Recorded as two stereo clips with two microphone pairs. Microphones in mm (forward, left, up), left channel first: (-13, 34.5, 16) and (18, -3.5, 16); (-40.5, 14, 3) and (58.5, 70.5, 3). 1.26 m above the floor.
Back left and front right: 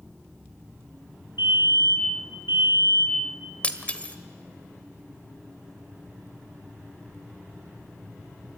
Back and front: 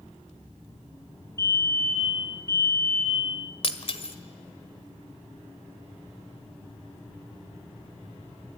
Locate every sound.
1.4 s a fire alarm: 85° right, 8 m
3.6 s breaking glass: 175° right, 1.6 m